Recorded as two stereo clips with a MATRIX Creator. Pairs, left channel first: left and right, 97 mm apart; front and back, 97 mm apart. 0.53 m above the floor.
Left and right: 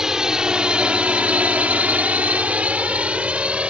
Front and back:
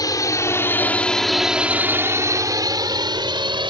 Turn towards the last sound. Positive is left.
turn(degrees=-170)